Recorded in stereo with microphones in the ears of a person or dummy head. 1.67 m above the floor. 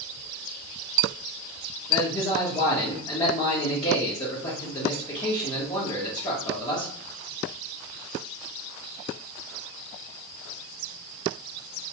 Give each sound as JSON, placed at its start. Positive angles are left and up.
{"t": 1.9, "sound": "a man speaking", "side_deg": 30, "distance_m": 0.9}